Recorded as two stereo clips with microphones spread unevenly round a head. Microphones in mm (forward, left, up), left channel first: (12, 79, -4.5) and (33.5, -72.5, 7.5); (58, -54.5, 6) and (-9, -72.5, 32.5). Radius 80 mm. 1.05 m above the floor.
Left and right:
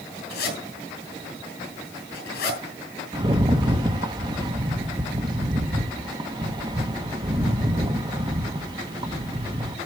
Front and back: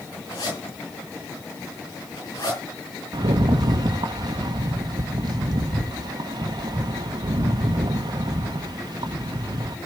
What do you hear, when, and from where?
0.3 s a zipper: 80° left, 6.5 m
3.1 s a rattle: 145° right, 1.0 m